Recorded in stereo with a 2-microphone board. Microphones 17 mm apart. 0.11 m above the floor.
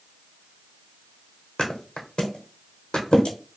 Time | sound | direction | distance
1.6 | a thud | 80° left | 0.9 m